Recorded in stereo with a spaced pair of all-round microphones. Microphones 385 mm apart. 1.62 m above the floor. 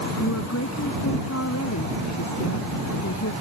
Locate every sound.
0.2 s a woman speaking: 40° left (ahead or behind)